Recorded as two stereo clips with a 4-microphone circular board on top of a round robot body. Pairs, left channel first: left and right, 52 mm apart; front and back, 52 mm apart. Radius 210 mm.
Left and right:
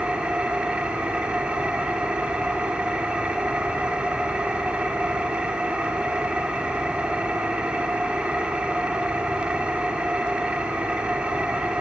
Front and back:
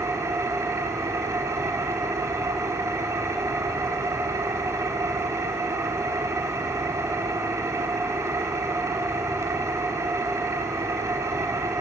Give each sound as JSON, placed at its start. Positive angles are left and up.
{"t": 0.0, "sound": "an engine running", "azimuth_deg": -160, "distance_m": 1.9}